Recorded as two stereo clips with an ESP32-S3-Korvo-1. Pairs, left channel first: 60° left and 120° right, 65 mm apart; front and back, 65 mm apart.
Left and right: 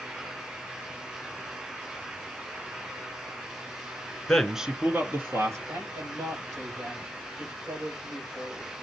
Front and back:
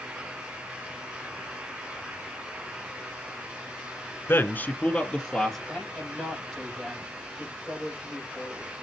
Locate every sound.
4.3 s a man speaking: 10° right, 1.3 m; by 5.6 s 85° right, 2.5 m
5.7 s a man speaking: 80° right, 6.5 m